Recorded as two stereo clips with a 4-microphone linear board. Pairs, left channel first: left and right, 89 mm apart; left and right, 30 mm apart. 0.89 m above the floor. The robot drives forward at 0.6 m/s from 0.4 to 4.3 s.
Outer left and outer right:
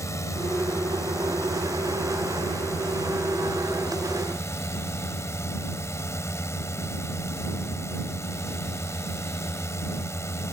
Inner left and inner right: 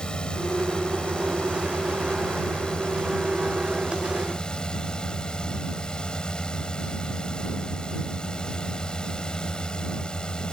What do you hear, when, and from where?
0.0 s a drone: 35° left (ahead or behind); by 10.5 s 30° left (ahead or behind)